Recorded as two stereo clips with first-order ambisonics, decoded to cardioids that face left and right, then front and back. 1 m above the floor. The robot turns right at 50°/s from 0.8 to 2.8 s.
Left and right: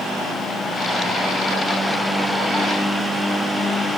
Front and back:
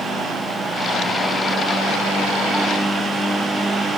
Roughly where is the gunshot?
No gunshot in this recording.